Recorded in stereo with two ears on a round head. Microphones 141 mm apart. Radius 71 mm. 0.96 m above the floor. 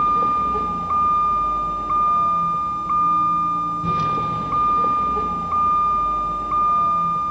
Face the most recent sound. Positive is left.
turn(degrees=-5)  # may be behind; listen again after turning